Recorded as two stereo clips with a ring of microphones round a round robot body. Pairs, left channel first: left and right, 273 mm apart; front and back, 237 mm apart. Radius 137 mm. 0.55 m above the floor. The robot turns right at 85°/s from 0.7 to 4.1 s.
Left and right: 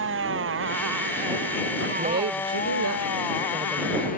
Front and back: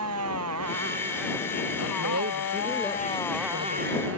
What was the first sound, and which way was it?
A motorcycle, 140° right.